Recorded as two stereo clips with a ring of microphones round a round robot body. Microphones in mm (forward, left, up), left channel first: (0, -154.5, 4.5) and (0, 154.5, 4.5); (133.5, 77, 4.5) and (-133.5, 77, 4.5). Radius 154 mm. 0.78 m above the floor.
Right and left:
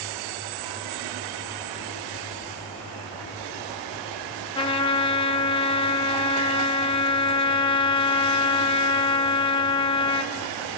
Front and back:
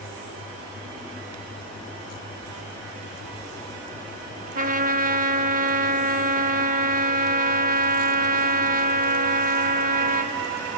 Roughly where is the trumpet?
Behind right.